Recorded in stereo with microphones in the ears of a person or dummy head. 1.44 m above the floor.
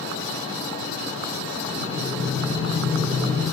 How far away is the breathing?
About 8.5 m.